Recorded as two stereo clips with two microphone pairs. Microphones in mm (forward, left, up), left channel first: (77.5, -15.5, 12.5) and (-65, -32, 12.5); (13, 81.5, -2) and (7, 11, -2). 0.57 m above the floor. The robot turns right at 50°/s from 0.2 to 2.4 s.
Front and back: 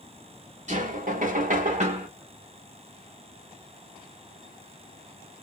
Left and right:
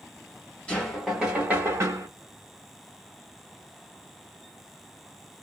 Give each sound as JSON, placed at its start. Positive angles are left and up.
{"t": 0.7, "sound": "knocking", "azimuth_deg": 160, "distance_m": 1.3}